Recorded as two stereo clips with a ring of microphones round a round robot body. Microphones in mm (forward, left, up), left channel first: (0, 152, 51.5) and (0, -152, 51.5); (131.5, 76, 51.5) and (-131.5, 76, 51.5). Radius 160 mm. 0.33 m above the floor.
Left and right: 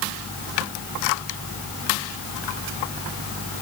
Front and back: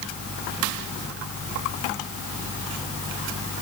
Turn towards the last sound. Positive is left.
No sound to turn to.